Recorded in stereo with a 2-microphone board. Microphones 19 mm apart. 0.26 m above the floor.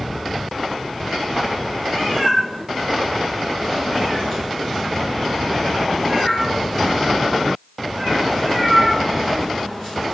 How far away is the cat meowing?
About 3 m.